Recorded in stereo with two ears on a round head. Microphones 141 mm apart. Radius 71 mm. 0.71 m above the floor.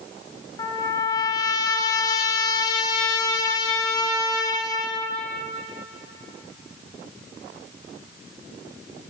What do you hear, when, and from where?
0.6 s a trumpet: 25° left (ahead or behind), 1.2 m